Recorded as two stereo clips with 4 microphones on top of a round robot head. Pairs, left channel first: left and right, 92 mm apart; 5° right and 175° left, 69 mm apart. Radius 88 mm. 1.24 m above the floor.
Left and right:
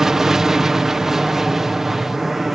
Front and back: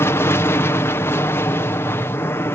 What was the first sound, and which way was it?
An aircraft, 10° right.